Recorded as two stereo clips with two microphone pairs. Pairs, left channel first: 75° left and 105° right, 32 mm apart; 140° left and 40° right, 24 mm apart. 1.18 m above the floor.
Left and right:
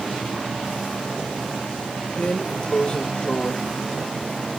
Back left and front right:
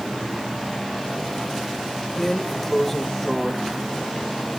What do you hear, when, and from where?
2.2 s a drawer: 75° left, 0.9 m